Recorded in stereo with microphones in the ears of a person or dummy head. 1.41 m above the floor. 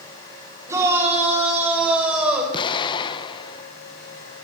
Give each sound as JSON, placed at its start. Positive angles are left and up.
{"t": 0.7, "sound": "a shout", "side_deg": -15, "distance_m": 8.5}
{"t": 2.5, "sound": "an explosion", "side_deg": 30, "distance_m": 1.2}